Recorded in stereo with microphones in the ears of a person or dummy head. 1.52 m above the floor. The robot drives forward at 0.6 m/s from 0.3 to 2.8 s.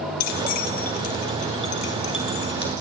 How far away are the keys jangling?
About 1.2 m.